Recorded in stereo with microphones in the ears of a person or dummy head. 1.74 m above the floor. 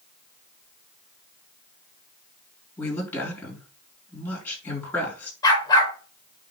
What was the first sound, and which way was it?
A woman speaking, 10° left (ahead or behind).